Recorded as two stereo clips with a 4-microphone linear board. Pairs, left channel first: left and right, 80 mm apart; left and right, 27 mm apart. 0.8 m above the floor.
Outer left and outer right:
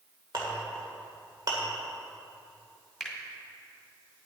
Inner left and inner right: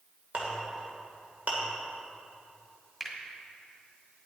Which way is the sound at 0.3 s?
60° right (ahead or behind).